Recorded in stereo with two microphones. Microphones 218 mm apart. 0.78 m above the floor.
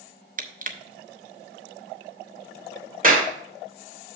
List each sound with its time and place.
0.4 s crushing: 40° right (ahead or behind), 0.8 m
3.0 s a clap: 40° right (ahead or behind), 2 m